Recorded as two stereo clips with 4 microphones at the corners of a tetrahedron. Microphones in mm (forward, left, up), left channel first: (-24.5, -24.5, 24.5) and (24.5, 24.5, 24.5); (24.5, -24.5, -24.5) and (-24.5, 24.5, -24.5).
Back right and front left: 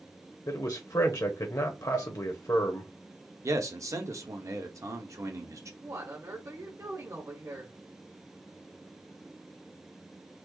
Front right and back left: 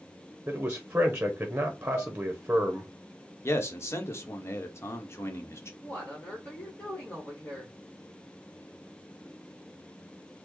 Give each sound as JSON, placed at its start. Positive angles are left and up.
{"t": 0.5, "sound": "a man speaking", "azimuth_deg": -160, "distance_m": 0.8}
{"t": 1.9, "sound": "dishes clattering", "azimuth_deg": -125, "distance_m": 1.3}
{"t": 3.4, "sound": "a man speaking", "azimuth_deg": 5, "distance_m": 0.9}
{"t": 5.8, "sound": "a woman speaking", "azimuth_deg": 15, "distance_m": 1.2}